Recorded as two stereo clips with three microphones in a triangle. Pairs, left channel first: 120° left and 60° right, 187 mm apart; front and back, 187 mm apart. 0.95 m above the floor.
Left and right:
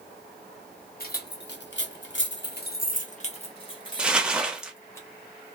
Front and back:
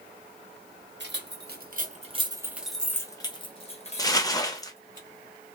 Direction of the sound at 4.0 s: 10° left.